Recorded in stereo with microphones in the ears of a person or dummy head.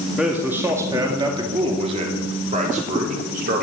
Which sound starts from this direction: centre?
A man speaking, at 0.2 s.